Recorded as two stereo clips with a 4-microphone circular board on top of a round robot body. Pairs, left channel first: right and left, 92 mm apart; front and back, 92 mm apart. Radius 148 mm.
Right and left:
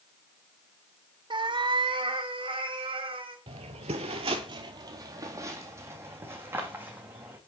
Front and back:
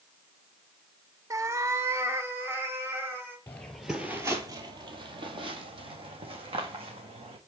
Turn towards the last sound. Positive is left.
turn(degrees=160)